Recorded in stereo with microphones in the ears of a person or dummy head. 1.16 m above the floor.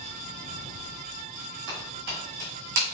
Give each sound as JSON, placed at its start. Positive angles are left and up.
{"t": 1.7, "sound": "footsteps", "side_deg": -45, "distance_m": 2.0}